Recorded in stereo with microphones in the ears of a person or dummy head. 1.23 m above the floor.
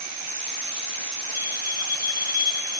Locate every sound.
1.3 s a bell: 10° right (ahead or behind), 4 m